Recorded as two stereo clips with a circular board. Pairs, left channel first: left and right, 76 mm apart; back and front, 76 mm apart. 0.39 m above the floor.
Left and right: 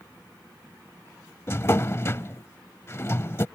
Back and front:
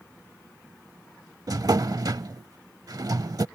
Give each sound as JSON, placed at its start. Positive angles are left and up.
{"t": 1.5, "sound": "a drawer", "azimuth_deg": 35}